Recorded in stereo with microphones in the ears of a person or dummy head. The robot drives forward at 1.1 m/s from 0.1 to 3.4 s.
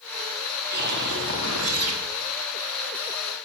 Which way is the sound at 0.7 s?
55° right (ahead or behind).